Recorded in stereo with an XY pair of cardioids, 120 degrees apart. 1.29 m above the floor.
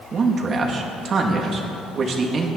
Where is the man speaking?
40° right, 2.5 m.